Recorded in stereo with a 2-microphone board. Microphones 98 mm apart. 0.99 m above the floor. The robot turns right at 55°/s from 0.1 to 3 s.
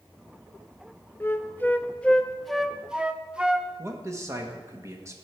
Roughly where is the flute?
Left.